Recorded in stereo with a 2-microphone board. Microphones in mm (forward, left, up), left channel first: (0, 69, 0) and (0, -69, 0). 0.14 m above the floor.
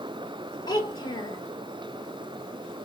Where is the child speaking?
30° left (ahead or behind), 0.9 m.